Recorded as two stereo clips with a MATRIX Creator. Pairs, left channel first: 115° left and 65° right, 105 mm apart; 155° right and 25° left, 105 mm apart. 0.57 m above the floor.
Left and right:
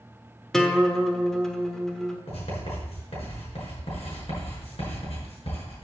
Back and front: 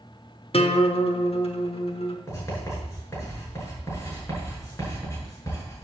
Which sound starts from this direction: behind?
A guitar, at 0.5 s.